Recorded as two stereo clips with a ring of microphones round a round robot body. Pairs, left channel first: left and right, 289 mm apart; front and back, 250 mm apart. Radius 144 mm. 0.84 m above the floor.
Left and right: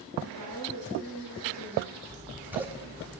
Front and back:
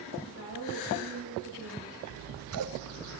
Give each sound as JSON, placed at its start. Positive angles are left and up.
{"t": 0.2, "sound": "a woman speaking", "azimuth_deg": -130, "distance_m": 4.0}
{"t": 2.1, "sound": "scissors", "azimuth_deg": -175, "distance_m": 0.6}